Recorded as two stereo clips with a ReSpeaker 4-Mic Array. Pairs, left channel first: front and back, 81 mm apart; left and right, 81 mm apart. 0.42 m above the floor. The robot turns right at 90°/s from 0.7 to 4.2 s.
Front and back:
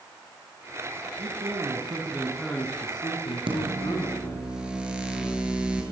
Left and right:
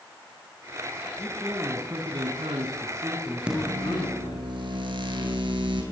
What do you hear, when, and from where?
1.2 s a man speaking: 160° left, 4.5 m; by 4.5 s 70° left, 4.5 m
3.5 s a microwave: 170° right, 7.5 m; by 5.8 s 100° right, 7.5 m